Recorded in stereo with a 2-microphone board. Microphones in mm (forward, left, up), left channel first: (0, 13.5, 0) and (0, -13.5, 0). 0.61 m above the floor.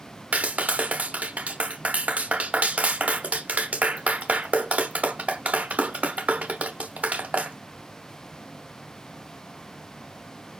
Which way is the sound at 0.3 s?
55° right (ahead or behind).